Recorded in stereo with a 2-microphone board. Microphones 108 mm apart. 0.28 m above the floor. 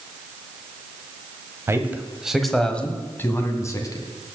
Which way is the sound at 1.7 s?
25° right (ahead or behind).